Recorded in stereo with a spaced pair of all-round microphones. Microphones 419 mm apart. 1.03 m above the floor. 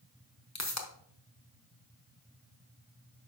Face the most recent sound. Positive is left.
turn(degrees=40)  # may be behind; listen again after turning